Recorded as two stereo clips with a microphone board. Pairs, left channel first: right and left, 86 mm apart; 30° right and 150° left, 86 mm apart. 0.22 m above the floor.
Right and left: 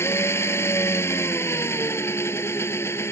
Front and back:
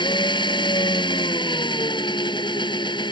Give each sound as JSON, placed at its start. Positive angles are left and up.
{"t": 0.0, "sound": "an engine running", "azimuth_deg": -30}